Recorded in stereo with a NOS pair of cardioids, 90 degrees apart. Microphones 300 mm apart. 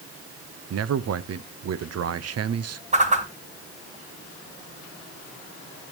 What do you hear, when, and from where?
0.7 s a man speaking: 55° right, 1.0 m
2.9 s a whoosh: 25° right, 2.5 m